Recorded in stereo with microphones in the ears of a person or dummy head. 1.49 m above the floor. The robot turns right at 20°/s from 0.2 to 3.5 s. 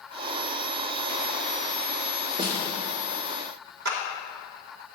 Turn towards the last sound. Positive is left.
turn(degrees=-60)  # may be behind; listen again after turning